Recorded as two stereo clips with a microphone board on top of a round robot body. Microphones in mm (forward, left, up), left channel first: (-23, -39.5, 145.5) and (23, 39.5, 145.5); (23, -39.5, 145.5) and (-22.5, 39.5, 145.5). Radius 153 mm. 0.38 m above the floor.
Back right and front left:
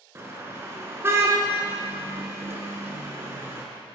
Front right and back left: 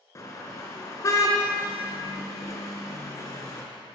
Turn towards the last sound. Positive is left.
turn(degrees=-5)